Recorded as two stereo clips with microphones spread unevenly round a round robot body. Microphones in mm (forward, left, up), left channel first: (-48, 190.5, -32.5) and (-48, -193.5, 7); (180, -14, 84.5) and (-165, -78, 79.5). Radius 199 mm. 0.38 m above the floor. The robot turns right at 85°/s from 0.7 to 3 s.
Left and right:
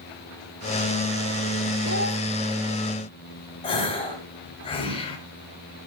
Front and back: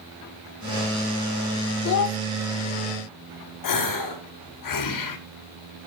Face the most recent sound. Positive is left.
turn(degrees=20)